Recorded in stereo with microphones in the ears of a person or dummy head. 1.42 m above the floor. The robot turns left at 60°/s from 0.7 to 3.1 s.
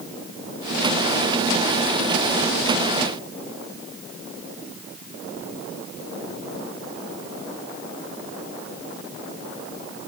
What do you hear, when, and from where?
Only background noise.